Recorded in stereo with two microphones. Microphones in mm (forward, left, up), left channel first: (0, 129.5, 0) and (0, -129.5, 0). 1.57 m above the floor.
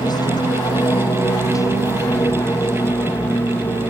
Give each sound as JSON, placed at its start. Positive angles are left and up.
{"t": 0.0, "sound": "an aircraft", "side_deg": 15}